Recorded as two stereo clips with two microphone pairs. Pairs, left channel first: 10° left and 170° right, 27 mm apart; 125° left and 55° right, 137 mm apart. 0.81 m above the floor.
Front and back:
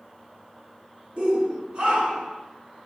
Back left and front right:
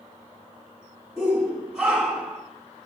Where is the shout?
140° right, 1.9 m.